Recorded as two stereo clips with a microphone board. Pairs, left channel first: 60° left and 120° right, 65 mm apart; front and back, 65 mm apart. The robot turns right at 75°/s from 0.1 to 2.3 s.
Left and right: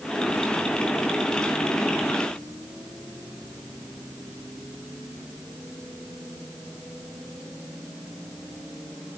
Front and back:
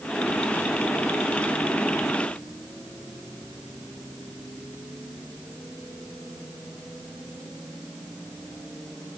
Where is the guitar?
I don't hear a guitar.